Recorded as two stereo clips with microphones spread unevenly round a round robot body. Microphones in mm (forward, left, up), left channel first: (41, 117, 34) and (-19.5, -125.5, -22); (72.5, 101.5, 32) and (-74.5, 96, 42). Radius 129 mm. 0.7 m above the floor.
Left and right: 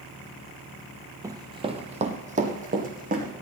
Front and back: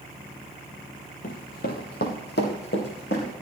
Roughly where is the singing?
No singing in this recording.